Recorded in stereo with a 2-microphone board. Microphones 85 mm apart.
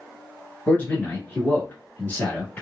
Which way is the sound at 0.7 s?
20° left (ahead or behind).